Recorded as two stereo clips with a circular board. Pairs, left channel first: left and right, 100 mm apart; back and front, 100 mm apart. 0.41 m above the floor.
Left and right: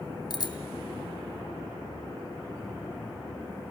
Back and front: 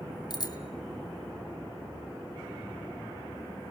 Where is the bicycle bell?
135° left, 2.5 m.